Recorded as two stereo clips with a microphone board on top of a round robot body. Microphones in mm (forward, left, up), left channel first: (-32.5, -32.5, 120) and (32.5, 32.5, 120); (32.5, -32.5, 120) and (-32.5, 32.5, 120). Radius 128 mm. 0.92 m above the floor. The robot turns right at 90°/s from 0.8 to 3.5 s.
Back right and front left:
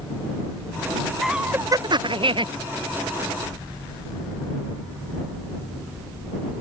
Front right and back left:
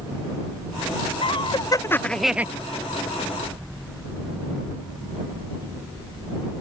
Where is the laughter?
45° right; by 2.5 s 65° left.